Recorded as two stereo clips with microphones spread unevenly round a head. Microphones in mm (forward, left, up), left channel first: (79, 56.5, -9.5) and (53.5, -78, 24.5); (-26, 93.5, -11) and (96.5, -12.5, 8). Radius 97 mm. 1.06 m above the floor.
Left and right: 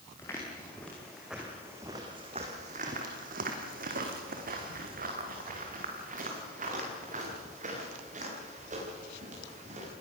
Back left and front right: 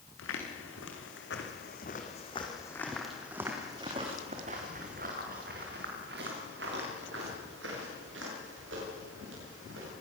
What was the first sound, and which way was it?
Footsteps, 160° left.